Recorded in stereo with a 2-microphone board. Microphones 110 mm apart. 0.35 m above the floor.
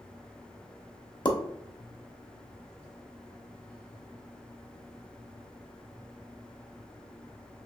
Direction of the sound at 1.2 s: 45° left (ahead or behind).